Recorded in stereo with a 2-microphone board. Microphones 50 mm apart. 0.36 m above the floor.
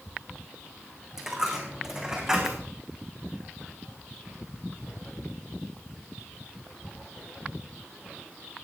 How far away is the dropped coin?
About 4.5 m.